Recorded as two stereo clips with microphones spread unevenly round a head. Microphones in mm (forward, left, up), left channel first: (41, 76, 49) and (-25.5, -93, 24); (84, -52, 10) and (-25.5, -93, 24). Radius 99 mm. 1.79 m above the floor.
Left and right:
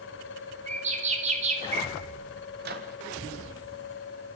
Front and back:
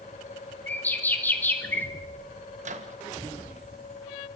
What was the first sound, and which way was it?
A bird, 55° right.